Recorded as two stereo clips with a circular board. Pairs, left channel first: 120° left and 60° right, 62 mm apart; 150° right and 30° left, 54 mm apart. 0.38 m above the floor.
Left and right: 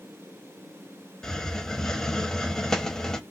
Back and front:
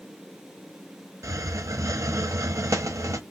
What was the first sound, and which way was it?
A hiss, 40° left.